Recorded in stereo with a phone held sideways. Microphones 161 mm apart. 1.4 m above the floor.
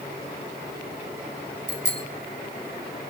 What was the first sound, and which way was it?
A bicycle bell, 75° right (ahead or behind).